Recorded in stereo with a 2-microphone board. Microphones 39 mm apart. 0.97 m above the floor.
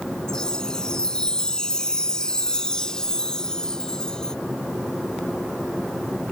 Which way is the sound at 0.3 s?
20° left (ahead or behind).